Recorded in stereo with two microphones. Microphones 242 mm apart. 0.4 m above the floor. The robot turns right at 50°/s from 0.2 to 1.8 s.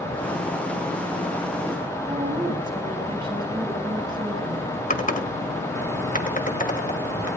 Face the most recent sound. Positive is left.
turn(degrees=35)  # may be behind; listen again after turning